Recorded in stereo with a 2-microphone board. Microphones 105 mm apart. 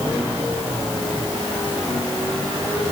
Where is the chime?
No chime in this recording.